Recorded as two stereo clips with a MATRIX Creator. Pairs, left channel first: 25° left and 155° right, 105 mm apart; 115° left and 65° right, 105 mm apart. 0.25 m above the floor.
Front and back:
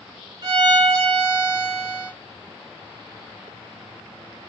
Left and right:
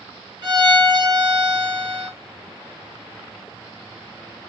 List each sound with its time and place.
0.4 s a violin: 110° right, 1.5 m